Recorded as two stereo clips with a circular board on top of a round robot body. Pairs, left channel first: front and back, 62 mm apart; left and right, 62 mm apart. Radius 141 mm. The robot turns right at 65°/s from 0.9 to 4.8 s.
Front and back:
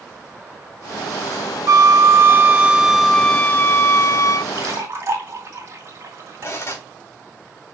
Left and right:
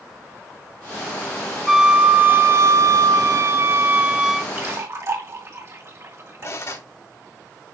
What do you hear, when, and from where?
1.7 s a flute: straight behind, 0.7 m; by 4.5 s straight ahead, 0.7 m
4.5 s a splash: 150° right, 3 m; by 6.8 s 135° right, 3 m
6.4 s cutlery clinking: 50° left, 3 m